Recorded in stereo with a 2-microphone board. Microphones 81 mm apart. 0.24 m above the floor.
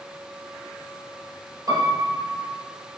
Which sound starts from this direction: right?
A piano, at 1.7 s.